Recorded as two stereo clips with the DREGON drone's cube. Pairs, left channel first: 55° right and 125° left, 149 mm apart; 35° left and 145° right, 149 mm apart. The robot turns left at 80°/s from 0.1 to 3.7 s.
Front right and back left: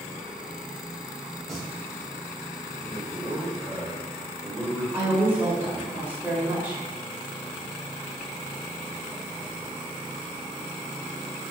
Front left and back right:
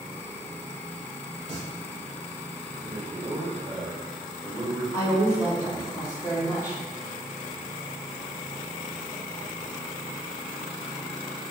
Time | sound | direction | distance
1.5 | singing | 140° right | 1.5 m
2.8 | a man speaking | 85° right | 1.6 m
4.9 | a woman speaking | 65° left | 1.6 m